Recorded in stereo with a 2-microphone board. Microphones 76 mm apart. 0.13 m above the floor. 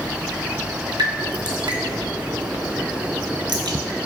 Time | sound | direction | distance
1.0 | dripping | 80° right | 0.6 m